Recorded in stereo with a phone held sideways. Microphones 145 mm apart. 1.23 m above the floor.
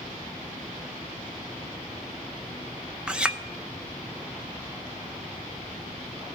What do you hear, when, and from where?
3.1 s a clink: 10° right (ahead or behind), 0.6 m